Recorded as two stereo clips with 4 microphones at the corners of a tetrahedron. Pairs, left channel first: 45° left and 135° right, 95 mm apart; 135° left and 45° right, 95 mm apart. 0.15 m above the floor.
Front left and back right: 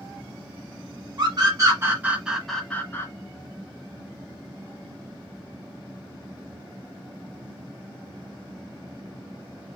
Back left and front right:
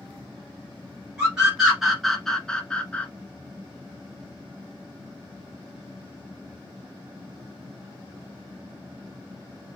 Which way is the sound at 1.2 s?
125° right.